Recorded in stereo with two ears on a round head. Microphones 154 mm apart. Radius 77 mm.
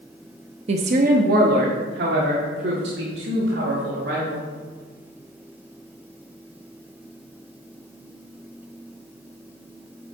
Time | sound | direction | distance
0.7 | a woman speaking | 35° right (ahead or behind) | 0.7 m